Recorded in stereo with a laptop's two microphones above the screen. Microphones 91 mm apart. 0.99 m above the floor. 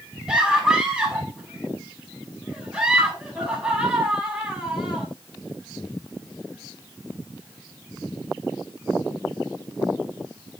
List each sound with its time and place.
0.3 s a scream: 10° right (ahead or behind), 7 m